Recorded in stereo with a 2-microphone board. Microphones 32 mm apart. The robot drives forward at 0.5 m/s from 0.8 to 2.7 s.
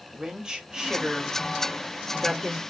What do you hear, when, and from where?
0.1 s a woman speaking: 25° right (ahead or behind), 1.6 m; by 2.6 s 30° right (ahead or behind), 1.4 m